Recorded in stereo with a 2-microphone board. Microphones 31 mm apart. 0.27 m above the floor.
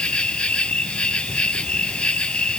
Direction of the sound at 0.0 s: 35° left (ahead or behind).